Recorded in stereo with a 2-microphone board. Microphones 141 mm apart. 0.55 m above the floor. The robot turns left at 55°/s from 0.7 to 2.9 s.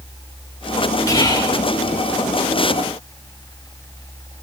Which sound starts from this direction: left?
Whispering, at 1.1 s.